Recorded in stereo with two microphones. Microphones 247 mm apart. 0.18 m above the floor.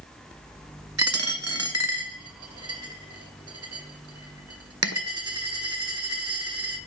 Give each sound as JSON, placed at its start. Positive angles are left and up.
{"t": 1.0, "sound": "a dropped coin", "side_deg": -75, "distance_m": 0.6}